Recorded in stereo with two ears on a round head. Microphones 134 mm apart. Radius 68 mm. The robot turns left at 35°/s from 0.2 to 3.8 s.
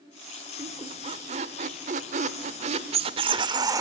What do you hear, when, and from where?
0.6 s a squeak: 35° right, 1.2 m; by 3.8 s 150° right, 1.2 m